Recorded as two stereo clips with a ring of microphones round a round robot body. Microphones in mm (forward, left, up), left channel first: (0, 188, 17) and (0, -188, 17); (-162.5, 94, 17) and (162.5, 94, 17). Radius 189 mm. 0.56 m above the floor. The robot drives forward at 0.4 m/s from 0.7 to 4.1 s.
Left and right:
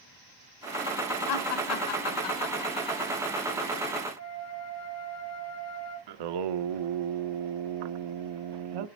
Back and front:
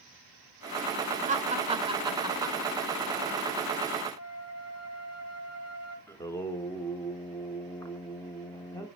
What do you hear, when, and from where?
1.3 s laughter: 65° left, 2.5 m; by 3.0 s 85° left, 2 m
4.2 s a flute: 140° left, 3.5 m
6.1 s singing: 100° right, 0.7 m